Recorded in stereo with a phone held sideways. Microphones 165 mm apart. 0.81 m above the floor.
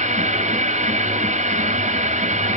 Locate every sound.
0.0 s a machine running: 45° right (ahead or behind), 0.8 m